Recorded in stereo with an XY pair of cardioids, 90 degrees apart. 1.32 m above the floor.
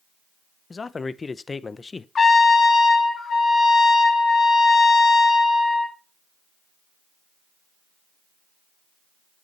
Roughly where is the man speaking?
Ahead left.